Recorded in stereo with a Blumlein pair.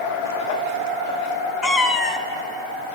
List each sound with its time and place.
1.6 s a cat meowing: 15° left, 0.8 m